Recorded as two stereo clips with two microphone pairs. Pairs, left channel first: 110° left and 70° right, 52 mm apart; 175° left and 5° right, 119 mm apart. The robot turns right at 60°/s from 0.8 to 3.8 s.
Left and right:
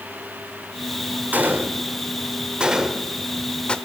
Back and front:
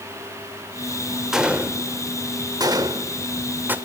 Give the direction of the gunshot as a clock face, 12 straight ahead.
3 o'clock.